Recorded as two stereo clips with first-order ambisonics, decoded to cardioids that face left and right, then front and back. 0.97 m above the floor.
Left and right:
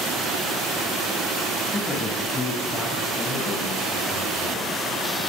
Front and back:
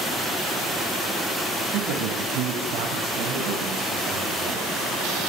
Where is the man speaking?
175° left, 6.5 m; by 4.7 s 155° left, 7.5 m.